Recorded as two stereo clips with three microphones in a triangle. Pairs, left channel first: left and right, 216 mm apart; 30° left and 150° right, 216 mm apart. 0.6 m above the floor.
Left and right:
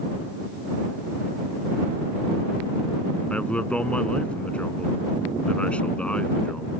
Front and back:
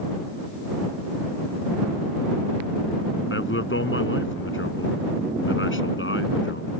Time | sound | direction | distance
3.3 | a man speaking | 5° left | ?